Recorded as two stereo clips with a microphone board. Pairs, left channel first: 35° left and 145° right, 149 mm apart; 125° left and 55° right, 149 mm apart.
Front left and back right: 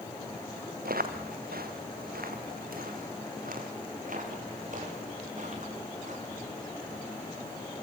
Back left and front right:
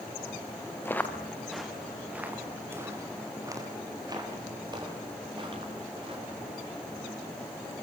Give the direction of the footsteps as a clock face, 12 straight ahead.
5 o'clock.